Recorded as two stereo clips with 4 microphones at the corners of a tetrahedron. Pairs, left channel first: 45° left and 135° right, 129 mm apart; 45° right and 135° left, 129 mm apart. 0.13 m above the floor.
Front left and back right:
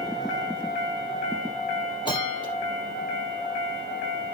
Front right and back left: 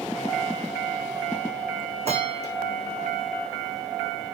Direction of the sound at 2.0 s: 100° left.